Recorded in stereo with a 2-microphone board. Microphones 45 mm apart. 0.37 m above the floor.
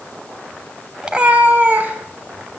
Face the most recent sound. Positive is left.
turn(degrees=-45)  # may be behind; listen again after turning